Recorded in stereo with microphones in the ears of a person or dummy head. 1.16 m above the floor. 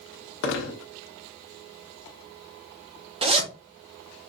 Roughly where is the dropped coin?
Left.